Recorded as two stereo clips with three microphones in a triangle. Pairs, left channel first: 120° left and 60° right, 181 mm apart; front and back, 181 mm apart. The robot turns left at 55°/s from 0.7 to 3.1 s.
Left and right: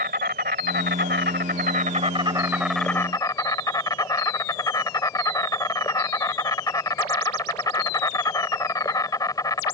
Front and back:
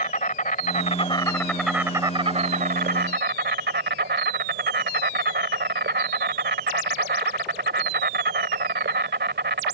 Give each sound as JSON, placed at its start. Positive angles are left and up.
{"t": 0.0, "sound": "an insect", "azimuth_deg": -40}